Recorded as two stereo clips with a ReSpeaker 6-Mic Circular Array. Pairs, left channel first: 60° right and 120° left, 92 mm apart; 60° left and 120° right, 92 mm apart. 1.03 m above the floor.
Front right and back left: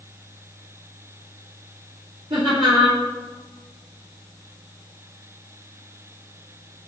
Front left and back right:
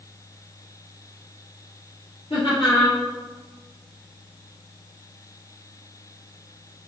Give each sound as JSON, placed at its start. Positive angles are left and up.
{"t": 2.3, "sound": "laughter", "azimuth_deg": 85, "distance_m": 3.0}